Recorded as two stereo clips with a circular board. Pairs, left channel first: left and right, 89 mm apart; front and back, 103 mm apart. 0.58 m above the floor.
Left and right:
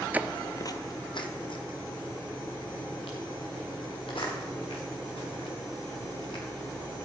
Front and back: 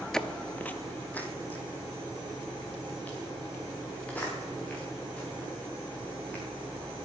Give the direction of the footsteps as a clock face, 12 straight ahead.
2 o'clock.